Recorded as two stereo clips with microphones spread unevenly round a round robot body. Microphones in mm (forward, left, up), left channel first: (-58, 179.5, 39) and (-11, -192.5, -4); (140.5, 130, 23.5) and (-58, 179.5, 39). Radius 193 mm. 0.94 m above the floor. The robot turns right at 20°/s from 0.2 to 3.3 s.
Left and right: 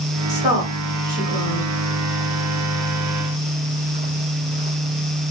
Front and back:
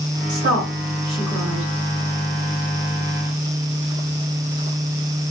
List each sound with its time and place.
0.3 s a woman speaking: 155° right, 1.5 m; by 1.7 s 125° right, 1.5 m